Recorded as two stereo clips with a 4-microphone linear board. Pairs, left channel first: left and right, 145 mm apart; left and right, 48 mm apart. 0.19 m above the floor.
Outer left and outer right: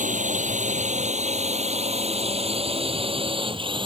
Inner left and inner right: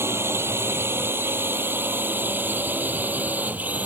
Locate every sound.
0.0 s a drone: 60° right (ahead or behind); by 3.9 s 35° right (ahead or behind)